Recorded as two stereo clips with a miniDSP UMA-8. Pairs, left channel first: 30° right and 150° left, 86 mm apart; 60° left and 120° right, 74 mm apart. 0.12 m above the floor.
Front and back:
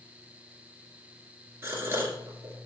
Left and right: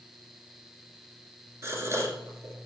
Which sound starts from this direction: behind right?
A gasp, at 1.6 s.